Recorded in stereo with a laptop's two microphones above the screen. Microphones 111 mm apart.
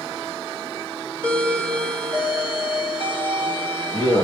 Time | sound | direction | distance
1.2 | a doorbell | 45° left (ahead or behind) | 2.5 m